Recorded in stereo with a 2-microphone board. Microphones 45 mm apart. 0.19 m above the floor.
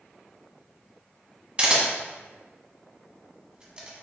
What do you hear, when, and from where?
1.6 s a camera shutter: 25° right (ahead or behind), 0.9 m